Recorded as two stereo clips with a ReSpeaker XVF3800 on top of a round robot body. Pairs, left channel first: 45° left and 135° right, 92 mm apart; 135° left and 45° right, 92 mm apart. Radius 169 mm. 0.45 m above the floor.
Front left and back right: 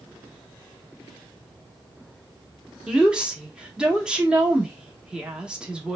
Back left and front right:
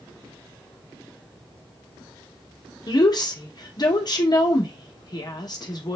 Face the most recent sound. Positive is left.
turn(degrees=145)